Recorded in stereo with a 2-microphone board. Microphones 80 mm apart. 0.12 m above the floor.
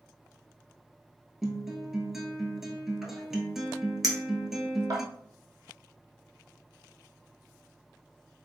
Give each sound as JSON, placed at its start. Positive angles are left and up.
{"t": 1.4, "sound": "a guitar", "side_deg": -5, "distance_m": 0.7}
{"t": 4.0, "sound": "a clink", "side_deg": -50, "distance_m": 0.9}